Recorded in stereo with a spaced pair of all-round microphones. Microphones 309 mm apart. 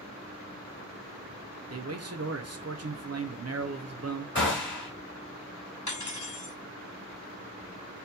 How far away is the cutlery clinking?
About 1.5 m.